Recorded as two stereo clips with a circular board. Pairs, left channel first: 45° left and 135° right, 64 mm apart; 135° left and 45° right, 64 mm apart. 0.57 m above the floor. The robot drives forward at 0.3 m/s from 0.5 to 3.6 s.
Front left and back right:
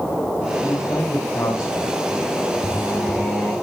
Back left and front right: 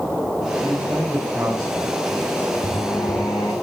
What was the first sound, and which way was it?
A man speaking, 20° left.